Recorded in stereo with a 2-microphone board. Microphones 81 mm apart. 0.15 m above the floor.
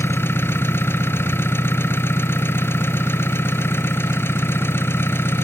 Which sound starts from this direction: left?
An engine running, at 0.0 s.